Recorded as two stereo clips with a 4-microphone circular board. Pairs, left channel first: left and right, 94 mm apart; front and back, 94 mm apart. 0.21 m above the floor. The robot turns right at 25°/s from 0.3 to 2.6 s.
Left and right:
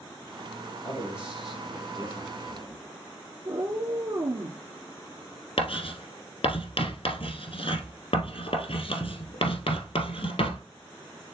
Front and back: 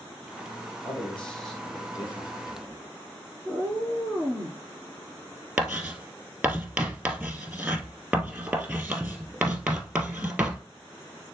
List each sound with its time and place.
0.8 s a man speaking: 25° left, 4 m; by 2.8 s 70° left, 4 m
3.5 s a cat meowing: 65° right, 1.4 m
5.6 s writing: 100° left, 1.5 m